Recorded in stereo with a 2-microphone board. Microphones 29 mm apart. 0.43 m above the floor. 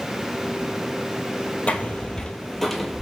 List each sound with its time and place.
1.7 s footsteps: 50° left (ahead or behind), 0.7 m; by 3.0 s 5° right (ahead or behind), 0.8 m